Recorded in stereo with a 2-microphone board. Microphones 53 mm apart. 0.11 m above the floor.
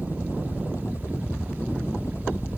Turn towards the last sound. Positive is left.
turn(degrees=60)  # may be behind; listen again after turning